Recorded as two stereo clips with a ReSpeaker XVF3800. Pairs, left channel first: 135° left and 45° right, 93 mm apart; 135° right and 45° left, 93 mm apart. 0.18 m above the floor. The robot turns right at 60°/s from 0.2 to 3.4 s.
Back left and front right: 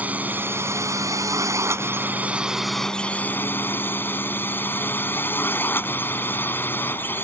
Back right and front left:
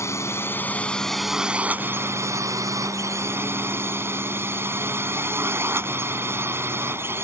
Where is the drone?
105° right; by 7.2 s 85° left.